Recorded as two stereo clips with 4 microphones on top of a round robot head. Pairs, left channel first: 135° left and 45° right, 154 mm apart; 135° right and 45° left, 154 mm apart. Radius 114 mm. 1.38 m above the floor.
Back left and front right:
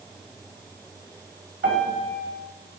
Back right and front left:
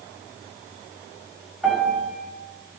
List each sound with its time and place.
1.6 s a piano: 45° right, 4.5 m